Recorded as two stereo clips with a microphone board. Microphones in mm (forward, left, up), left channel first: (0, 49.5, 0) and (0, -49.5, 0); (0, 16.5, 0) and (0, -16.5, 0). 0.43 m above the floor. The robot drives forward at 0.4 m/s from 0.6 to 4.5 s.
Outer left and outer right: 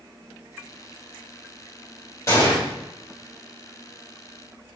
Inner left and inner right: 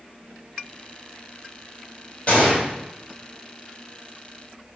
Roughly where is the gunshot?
Left.